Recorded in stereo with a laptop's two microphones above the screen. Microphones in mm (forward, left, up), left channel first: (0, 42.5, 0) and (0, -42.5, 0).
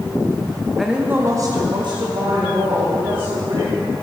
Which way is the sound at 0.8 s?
Centre (ahead or behind).